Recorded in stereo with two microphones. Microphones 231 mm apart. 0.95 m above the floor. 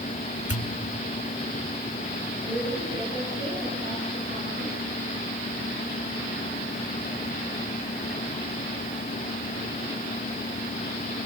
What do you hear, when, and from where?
0.5 s a pop: 75° left (ahead or behind), 1.6 m
2.4 s a woman speaking: 50° right (ahead or behind), 9.5 m